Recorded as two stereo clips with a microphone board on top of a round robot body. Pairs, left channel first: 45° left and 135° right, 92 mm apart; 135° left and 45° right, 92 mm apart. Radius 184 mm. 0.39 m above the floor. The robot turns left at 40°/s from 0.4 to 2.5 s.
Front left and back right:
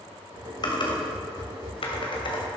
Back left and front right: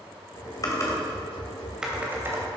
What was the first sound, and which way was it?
Typing on a keyboard, 85° left.